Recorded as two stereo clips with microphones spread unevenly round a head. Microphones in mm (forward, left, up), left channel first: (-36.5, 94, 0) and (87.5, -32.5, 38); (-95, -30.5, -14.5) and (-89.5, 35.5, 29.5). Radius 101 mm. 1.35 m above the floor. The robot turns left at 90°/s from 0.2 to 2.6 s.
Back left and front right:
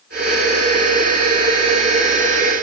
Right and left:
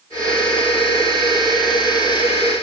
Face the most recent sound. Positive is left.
No sound to turn to.